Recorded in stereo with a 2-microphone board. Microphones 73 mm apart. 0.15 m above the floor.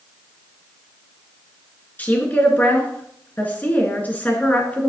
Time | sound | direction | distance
2.0 | a woman speaking | 20° left (ahead or behind) | 2 m